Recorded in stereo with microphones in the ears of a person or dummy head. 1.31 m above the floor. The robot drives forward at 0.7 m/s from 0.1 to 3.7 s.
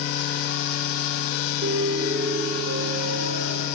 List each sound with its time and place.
1.6 s a piano: 75° right (ahead or behind), 3 m; by 3.7 s 50° right (ahead or behind), 4 m